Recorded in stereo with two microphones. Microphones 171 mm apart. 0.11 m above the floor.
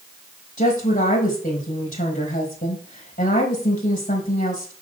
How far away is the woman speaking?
About 4 m.